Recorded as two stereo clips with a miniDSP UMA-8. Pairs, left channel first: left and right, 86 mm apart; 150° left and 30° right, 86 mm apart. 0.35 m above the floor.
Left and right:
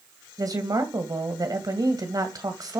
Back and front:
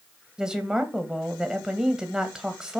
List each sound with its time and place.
0.4 s a woman speaking: 110° right, 2 m